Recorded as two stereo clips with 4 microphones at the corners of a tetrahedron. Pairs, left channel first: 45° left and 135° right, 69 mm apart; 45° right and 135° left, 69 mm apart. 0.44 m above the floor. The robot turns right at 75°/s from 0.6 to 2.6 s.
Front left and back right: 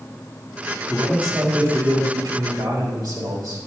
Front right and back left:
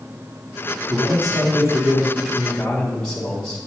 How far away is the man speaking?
About 3.5 m.